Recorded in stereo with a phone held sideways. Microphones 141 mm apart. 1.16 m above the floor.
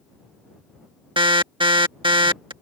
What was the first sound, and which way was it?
An alarm, 35° right (ahead or behind).